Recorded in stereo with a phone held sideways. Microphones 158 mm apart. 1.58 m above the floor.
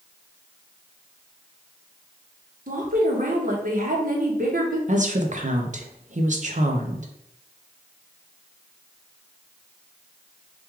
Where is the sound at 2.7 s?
60° right (ahead or behind), 1.1 m.